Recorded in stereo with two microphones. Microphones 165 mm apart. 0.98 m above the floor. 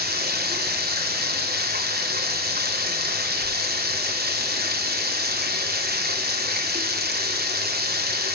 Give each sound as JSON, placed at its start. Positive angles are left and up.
{"t": 0.0, "sound": "running water", "side_deg": -80, "distance_m": 2.5}